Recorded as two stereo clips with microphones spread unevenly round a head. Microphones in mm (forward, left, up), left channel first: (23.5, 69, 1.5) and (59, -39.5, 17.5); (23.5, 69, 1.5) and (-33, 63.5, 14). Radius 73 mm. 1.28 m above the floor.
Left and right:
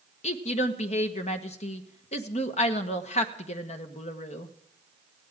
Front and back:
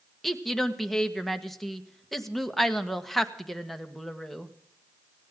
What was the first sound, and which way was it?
A woman speaking, 90° left.